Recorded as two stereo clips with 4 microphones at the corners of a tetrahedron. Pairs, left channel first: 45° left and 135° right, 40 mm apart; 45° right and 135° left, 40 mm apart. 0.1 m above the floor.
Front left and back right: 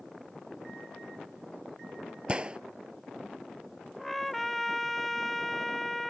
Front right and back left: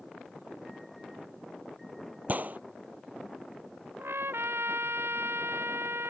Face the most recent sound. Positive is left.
turn(degrees=130)